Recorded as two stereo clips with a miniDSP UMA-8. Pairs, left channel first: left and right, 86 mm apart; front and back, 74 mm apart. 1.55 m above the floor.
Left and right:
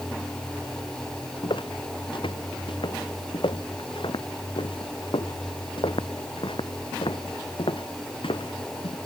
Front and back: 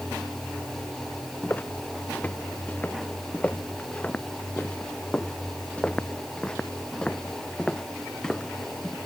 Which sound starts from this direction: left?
Footsteps, at 1.4 s.